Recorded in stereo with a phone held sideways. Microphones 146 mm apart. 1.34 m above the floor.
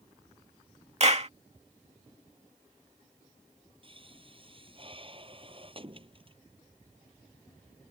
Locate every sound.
1.0 s a clap: 45° right (ahead or behind)
3.8 s a pop: 40° right (ahead or behind)